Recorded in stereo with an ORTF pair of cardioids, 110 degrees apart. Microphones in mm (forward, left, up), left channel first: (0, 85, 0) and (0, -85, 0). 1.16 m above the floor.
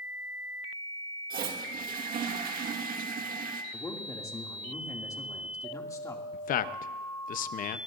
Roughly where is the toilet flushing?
Ahead right.